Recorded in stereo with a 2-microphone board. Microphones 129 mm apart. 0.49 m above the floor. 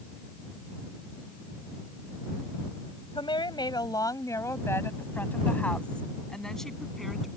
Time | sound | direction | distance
3.1 | a woman speaking | 40° left (ahead or behind) | ?